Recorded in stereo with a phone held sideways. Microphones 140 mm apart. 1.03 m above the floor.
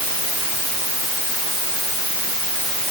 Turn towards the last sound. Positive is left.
No sound to turn to.